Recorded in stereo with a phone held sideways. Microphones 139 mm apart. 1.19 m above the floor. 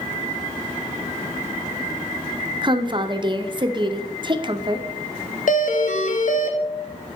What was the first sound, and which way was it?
A woman speaking, 35° right (ahead or behind).